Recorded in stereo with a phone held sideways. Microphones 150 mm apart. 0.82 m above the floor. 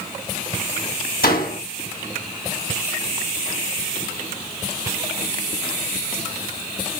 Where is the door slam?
85° left, 4 m.